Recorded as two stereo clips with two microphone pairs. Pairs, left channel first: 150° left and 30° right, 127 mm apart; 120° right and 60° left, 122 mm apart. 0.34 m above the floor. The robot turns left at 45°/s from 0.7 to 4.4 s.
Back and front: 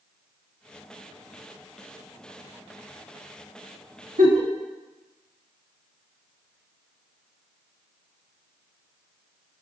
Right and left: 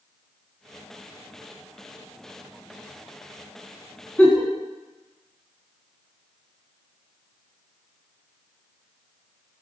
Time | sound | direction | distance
4.2 | a giggle | 45° right | 0.7 m